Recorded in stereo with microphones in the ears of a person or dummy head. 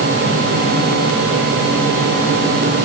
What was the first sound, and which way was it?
Only background noise.